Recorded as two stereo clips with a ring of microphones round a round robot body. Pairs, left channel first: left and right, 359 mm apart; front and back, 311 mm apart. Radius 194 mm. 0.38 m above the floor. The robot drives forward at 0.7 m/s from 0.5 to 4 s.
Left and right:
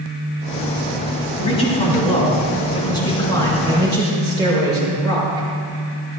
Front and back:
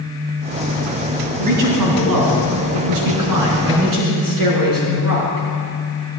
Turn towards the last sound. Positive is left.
turn(degrees=170)